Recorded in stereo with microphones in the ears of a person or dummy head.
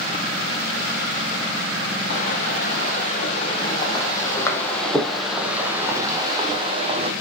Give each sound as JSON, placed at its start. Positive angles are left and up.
{"t": 2.1, "sound": "footsteps", "side_deg": 45, "distance_m": 4.0}